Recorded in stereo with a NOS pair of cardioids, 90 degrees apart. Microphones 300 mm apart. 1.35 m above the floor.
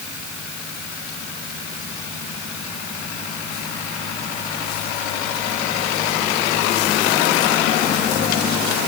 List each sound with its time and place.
Only background noise.